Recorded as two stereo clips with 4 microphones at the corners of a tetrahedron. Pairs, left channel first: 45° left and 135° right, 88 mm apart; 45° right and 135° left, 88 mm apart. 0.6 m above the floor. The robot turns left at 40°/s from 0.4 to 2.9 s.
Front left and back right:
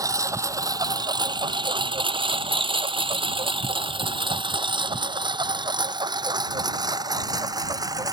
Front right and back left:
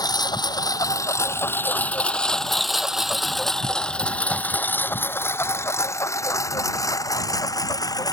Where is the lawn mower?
85° right; by 8.2 s 90° right.